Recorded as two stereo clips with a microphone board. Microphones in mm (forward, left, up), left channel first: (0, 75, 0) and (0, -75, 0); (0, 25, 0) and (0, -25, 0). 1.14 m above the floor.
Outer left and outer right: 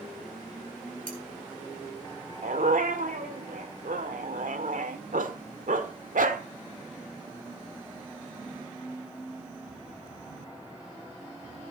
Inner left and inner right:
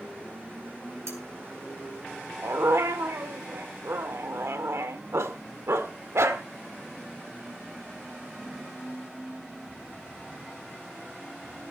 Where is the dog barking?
65° right (ahead or behind), 1.6 m.